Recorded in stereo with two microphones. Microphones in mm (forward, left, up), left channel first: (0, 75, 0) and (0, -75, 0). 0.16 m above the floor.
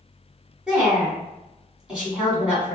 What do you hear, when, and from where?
0.7 s a woman speaking: 5° right (ahead or behind), 1.4 m